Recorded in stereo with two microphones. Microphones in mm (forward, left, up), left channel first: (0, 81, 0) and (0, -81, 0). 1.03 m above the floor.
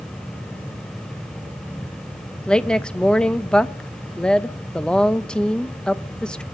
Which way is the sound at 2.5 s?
5° left (ahead or behind).